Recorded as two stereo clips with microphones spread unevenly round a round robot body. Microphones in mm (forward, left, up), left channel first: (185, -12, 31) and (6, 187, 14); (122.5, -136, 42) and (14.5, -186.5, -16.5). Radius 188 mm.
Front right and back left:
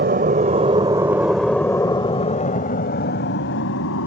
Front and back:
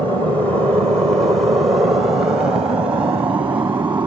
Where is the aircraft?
135° left; by 4.1 s 95° right.